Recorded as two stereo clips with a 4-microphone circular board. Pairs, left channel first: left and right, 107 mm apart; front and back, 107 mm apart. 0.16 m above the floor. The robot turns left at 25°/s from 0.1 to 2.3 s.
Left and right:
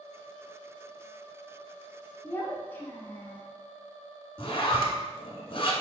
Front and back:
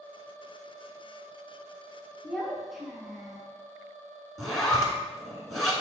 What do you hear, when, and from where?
2.2 s a child speaking: 90° left, 0.6 m
4.4 s a zipper: 90° left, 0.7 m